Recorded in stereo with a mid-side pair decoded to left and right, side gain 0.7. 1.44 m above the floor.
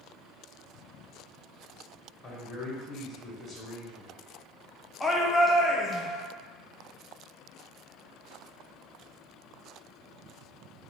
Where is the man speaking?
15° left, 1.2 m.